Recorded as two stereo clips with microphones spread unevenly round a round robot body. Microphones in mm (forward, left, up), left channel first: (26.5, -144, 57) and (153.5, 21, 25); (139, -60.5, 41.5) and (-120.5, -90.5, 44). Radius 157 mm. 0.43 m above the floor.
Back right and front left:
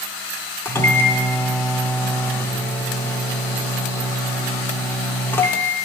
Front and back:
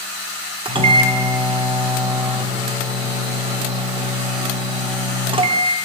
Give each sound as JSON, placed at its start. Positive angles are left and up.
{"t": 0.7, "sound": "a microwave", "azimuth_deg": 145, "distance_m": 0.5}